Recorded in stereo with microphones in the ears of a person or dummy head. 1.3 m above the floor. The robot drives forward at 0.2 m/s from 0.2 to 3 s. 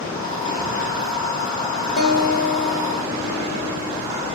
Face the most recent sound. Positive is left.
turn(degrees=50)  # may be behind; listen again after turning